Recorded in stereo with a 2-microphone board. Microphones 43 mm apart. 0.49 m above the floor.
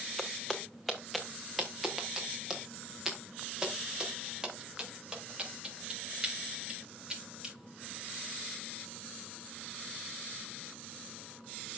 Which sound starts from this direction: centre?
Footsteps, at 0.2 s.